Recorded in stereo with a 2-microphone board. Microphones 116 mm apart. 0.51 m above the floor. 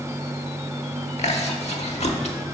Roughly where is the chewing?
Left.